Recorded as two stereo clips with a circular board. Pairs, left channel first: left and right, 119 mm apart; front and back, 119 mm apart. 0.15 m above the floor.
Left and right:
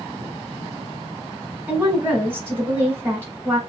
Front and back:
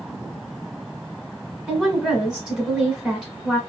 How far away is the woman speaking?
About 1.1 m.